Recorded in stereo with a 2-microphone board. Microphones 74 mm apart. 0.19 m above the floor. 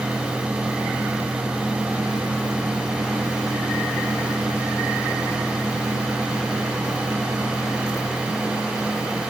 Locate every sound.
Only background noise.